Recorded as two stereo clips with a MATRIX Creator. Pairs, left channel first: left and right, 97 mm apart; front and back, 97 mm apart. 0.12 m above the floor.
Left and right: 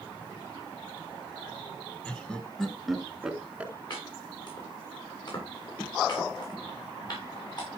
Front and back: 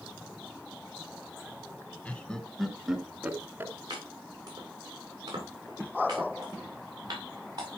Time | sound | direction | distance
2.0 | laughter | 40° left | 1.4 m
3.9 | chopping | 130° left | 7.5 m